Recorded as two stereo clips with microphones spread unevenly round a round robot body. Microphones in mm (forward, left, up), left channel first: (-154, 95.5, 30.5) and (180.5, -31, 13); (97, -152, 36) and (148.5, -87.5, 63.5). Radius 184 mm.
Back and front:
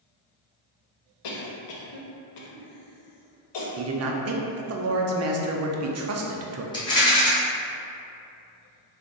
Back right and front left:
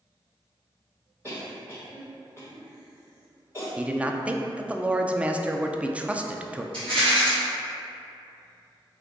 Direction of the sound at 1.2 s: 130° left.